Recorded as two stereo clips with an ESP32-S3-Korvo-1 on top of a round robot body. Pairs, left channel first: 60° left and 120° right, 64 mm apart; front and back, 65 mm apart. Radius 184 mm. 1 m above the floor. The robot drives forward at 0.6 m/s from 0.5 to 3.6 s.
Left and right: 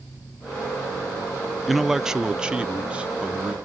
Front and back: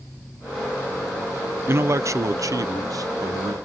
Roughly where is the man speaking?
Behind left.